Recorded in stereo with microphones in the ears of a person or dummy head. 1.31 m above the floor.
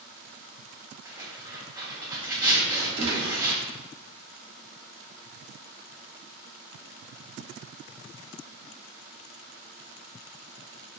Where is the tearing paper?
15° right (ahead or behind), 1.0 m.